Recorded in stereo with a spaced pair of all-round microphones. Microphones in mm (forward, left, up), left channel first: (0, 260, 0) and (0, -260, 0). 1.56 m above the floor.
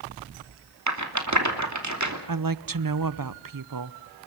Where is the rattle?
35° right (ahead or behind), 3 m.